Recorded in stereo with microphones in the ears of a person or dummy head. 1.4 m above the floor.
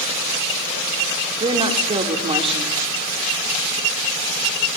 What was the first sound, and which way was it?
A woman speaking, 25° right (ahead or behind).